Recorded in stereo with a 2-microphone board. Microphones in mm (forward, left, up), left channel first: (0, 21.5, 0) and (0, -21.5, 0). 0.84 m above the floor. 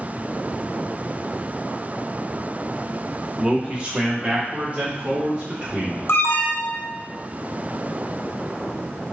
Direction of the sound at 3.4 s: 15° right (ahead or behind).